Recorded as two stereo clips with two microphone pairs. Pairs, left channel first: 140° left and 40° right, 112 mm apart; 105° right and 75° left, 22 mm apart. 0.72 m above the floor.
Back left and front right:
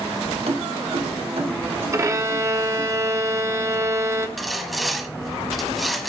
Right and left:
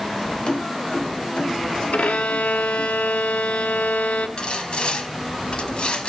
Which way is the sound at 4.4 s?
130° right.